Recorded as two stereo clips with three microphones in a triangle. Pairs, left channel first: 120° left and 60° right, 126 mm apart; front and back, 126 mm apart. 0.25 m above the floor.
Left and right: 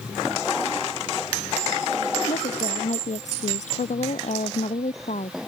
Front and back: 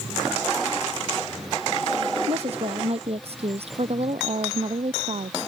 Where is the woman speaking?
145° left.